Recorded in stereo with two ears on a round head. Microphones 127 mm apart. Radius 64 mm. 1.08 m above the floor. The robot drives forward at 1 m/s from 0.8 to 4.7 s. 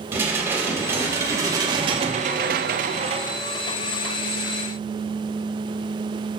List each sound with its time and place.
0.1 s dishes clattering: 15° right (ahead or behind), 1.9 m; by 3.4 s 30° right (ahead or behind), 1.0 m